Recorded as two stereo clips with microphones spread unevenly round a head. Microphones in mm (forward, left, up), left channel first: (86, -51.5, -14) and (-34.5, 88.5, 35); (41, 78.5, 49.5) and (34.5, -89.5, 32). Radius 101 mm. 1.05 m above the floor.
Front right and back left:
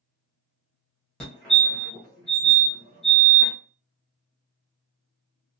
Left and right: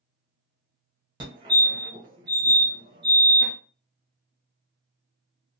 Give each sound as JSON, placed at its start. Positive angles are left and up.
{"t": 1.2, "sound": "a fire alarm", "azimuth_deg": -105, "distance_m": 1.2}